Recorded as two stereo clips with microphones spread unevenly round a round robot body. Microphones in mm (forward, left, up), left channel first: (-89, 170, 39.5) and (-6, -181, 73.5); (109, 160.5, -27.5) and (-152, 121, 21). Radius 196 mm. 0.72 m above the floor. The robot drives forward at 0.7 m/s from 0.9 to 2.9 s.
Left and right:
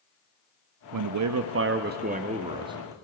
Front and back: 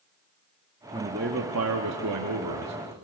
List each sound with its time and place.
0.9 s a man speaking: 85° right, 0.8 m; by 2.9 s 160° right, 1.6 m